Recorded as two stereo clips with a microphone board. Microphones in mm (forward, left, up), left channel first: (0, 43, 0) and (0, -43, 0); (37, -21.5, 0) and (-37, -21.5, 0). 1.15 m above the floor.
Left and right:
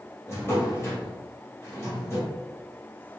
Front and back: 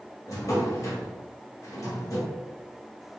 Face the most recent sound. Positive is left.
turn(degrees=35)